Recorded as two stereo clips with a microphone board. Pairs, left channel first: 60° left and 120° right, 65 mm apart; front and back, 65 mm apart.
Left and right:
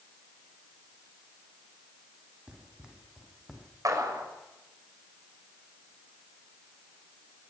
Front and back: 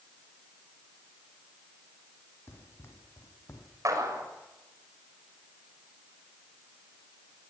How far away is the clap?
About 6.5 m.